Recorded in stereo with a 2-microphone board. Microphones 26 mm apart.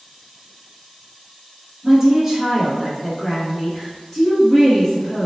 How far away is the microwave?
No microwave in this recording.